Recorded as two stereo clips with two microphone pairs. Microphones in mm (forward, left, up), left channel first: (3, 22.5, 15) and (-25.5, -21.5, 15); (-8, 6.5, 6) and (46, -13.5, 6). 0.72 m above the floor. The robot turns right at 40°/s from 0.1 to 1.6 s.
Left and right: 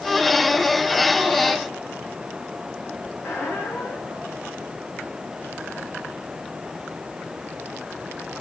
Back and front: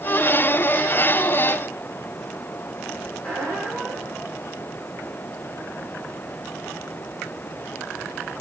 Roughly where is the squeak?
Left.